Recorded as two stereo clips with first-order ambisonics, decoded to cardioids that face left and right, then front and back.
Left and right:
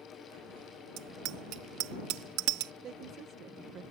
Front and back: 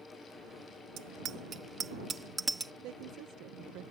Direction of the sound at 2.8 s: 145° right.